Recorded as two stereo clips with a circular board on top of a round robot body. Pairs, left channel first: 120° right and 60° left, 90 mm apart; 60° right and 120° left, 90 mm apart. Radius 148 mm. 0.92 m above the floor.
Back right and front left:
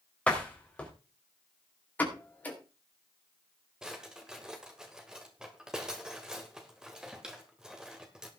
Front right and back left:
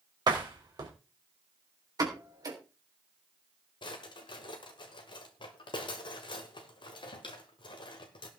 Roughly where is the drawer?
Ahead.